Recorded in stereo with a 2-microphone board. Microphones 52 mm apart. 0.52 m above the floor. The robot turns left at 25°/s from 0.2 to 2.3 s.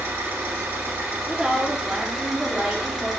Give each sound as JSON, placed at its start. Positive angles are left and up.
{"t": 0.0, "sound": "an engine running", "azimuth_deg": -120, "distance_m": 1.9}
{"t": 1.3, "sound": "a woman speaking", "side_deg": -15, "distance_m": 0.8}